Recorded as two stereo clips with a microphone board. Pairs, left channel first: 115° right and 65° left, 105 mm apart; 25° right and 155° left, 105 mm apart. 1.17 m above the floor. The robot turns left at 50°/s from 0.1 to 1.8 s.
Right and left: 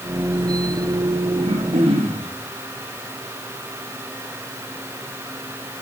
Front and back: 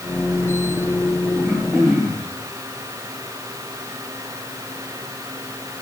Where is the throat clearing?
95° left, 4.5 m; by 2.3 s 70° left, 4.5 m.